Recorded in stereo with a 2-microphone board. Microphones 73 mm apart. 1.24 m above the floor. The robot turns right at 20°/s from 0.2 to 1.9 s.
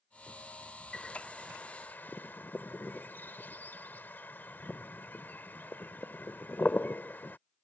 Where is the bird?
10° left (ahead or behind); by 7.4 s 25° left (ahead or behind).